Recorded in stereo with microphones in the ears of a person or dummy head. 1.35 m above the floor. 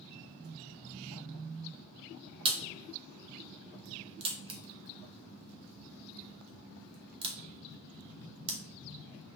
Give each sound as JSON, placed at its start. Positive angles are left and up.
{"t": 2.5, "sound": "a crack", "side_deg": -25, "distance_m": 0.8}